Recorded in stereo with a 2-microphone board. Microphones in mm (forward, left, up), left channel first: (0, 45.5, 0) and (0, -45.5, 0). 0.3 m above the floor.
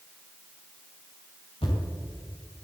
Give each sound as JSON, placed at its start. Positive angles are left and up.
{"t": 1.6, "sound": "a thud", "side_deg": 80, "distance_m": 6.0}